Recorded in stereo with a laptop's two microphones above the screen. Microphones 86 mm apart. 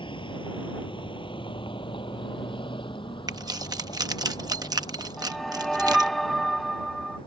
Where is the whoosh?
Centre (ahead or behind).